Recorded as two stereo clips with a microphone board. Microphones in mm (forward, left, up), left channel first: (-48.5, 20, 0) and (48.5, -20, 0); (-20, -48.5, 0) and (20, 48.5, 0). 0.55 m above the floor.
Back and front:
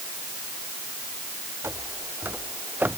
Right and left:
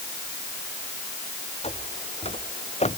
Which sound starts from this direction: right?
Footsteps, at 1.6 s.